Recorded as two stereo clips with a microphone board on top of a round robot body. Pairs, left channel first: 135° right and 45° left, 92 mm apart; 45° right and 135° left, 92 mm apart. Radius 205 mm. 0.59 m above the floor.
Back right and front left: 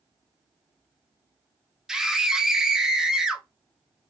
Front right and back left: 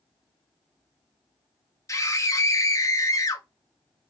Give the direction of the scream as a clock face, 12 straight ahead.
1 o'clock.